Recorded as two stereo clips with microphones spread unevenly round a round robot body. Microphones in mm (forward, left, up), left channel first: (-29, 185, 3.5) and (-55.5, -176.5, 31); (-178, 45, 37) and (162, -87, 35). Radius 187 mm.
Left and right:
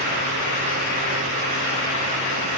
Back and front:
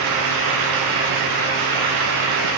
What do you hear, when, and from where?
Only background noise.